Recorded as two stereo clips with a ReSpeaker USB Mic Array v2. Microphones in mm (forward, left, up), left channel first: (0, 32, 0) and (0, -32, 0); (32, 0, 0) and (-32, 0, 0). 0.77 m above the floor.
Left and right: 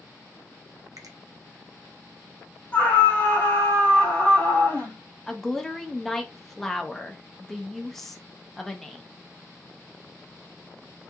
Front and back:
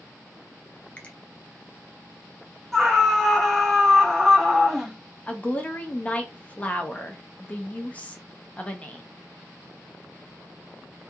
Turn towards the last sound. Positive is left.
turn(degrees=15)